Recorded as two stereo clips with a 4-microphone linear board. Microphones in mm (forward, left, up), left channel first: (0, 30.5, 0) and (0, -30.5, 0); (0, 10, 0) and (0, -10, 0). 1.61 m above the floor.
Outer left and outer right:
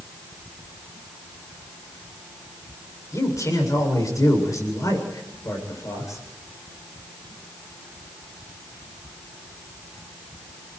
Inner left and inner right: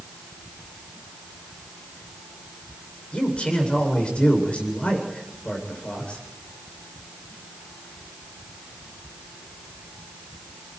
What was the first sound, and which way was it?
A man speaking, 70° left (ahead or behind).